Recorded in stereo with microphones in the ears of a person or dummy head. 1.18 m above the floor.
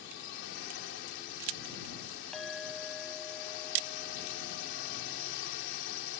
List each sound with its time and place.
0.0 s a drone: 55° left (ahead or behind)
2.3 s a clink: centre (ahead or behind)